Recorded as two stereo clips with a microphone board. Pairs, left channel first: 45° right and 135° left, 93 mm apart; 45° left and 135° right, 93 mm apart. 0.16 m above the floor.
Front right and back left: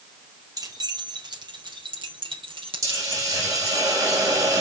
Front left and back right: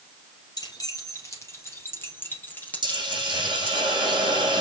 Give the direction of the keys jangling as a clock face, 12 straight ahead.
9 o'clock.